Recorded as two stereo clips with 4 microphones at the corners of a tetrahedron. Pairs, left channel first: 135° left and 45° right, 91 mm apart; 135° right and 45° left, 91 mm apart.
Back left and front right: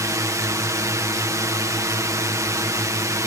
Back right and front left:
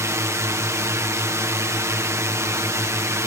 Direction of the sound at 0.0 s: 5° right.